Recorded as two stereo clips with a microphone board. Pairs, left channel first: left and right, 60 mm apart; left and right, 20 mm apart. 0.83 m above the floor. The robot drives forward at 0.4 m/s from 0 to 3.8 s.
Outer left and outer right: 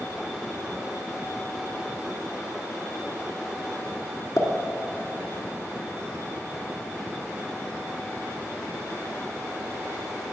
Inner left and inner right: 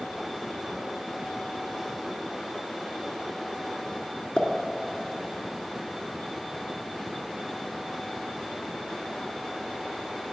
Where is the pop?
60° left (ahead or behind), 1.8 m.